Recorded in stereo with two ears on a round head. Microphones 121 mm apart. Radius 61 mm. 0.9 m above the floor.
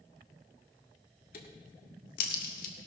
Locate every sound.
1.3 s a crack: 70° left (ahead or behind), 1.7 m